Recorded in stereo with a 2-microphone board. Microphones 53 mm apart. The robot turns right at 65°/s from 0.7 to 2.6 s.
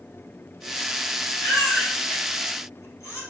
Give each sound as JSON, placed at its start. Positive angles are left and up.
{"t": 1.4, "sound": "a baby crying", "side_deg": 35, "distance_m": 5.0}